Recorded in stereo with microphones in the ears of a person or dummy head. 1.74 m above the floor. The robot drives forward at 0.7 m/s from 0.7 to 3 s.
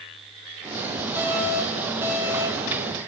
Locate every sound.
1.2 s an alarm: 10° right (ahead or behind), 6 m; by 2.7 s 15° right (ahead or behind), 5 m